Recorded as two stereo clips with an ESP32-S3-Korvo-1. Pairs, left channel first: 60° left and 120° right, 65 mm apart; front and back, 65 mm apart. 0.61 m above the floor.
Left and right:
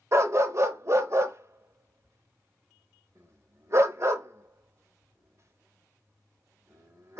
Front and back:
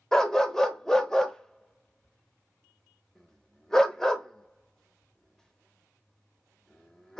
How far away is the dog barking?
About 0.5 m.